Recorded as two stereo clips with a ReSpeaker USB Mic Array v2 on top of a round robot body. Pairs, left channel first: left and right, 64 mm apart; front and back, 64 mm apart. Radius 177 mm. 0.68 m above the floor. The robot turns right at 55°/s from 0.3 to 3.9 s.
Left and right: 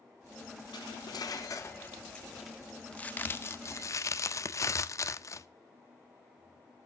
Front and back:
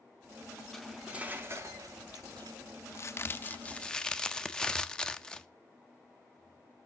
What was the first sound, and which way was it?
Cutlery clinking, 85° left.